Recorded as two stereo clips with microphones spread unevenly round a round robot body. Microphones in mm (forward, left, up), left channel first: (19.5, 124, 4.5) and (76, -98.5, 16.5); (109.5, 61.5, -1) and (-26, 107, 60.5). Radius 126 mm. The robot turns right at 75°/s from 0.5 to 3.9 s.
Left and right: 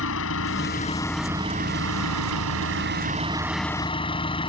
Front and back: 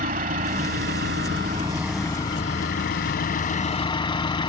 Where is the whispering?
No whispering in this recording.